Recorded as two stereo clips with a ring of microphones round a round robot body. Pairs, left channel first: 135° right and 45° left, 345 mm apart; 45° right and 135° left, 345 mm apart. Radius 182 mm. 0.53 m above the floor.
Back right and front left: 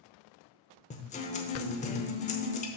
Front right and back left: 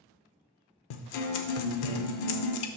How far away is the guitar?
About 0.8 m.